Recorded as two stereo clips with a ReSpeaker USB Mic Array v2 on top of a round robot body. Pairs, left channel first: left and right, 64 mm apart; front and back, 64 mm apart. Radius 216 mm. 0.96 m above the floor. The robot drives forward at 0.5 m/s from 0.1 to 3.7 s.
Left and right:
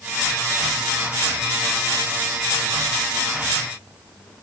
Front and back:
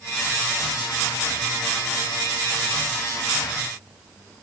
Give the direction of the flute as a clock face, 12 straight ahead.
No flute in this recording.